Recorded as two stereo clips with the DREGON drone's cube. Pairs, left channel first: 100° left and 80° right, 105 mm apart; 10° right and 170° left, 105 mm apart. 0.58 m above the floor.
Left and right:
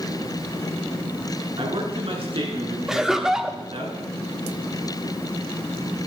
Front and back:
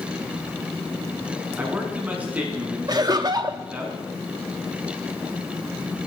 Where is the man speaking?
115° right, 5 m.